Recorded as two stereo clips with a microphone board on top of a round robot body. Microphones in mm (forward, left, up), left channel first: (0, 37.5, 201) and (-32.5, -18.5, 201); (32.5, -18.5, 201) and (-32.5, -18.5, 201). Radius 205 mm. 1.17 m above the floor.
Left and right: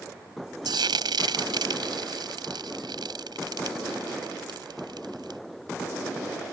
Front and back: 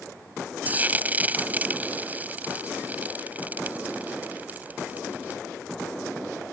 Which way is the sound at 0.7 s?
115° right.